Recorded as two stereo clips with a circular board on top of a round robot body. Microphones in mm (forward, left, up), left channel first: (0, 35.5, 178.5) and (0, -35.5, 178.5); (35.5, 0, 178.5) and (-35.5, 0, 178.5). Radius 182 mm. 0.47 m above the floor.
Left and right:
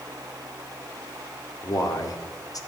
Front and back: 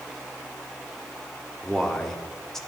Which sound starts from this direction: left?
A man speaking, at 1.6 s.